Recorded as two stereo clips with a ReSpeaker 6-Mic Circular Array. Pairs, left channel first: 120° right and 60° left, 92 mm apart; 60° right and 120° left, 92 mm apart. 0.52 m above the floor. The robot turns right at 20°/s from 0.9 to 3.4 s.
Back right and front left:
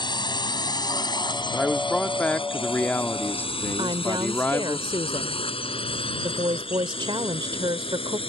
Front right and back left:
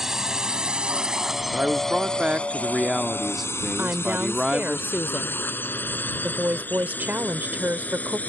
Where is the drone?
155° right; by 8.3 s 135° right.